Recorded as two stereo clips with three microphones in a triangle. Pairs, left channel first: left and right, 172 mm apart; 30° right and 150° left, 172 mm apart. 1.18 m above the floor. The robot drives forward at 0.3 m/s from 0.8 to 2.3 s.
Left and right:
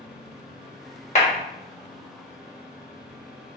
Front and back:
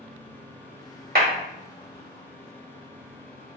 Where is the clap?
135° left, 1.0 m.